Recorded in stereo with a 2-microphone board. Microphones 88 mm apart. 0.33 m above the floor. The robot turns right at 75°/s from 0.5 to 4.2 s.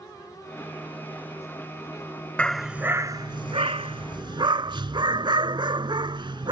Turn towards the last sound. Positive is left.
turn(degrees=-60)